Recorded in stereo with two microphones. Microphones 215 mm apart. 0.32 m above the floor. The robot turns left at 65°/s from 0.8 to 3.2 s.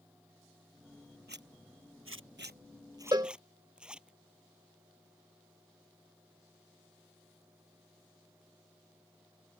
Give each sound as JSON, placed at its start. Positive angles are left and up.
{"t": 1.3, "sound": "a zipper", "side_deg": -50}
{"t": 3.1, "sound": "a cowbell", "side_deg": -20}